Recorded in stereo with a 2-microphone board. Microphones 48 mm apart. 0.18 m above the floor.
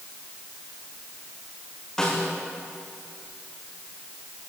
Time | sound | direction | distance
2.0 | a snare drum | 15° left (ahead or behind) | 9 m